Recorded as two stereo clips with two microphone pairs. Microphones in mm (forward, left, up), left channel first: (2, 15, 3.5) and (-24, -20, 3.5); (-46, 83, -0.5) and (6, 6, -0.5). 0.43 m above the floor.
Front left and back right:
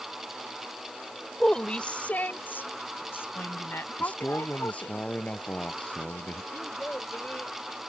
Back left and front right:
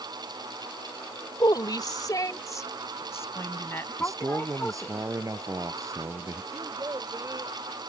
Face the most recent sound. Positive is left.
turn(degrees=0)